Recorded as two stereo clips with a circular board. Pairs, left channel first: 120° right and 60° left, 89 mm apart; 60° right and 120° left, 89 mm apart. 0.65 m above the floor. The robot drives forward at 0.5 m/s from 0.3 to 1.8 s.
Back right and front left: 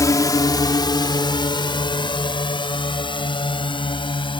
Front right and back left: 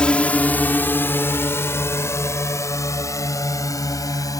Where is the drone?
135° right; by 4.4 s 105° right.